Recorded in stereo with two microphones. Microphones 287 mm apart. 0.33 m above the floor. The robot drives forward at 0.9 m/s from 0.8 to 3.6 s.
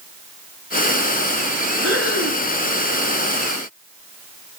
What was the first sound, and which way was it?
Breathing, 50° right (ahead or behind).